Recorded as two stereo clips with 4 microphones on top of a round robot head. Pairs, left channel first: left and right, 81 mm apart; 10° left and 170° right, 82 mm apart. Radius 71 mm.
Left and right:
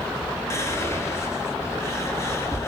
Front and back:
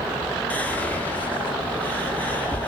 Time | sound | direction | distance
0.5 | whispering | 70° left | 0.7 m